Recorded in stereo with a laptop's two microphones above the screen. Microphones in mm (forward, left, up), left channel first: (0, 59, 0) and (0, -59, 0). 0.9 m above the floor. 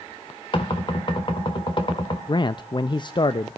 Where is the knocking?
45° left (ahead or behind), 1.8 m.